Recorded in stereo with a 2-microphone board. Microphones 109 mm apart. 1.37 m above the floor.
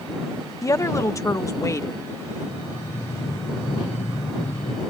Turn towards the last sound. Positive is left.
turn(degrees=50)  # may be behind; listen again after turning